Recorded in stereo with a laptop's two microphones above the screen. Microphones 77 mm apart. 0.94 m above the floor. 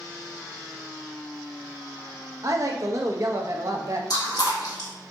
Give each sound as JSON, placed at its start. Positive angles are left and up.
{"t": 2.4, "sound": "a woman speaking", "side_deg": -40, "distance_m": 0.9}
{"t": 4.1, "sound": "chewing", "side_deg": 60, "distance_m": 1.6}